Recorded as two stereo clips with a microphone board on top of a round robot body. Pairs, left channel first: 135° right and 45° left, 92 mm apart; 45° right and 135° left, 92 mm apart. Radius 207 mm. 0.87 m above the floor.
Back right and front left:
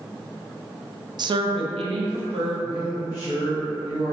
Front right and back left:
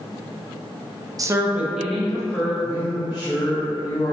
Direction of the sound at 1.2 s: 85° left.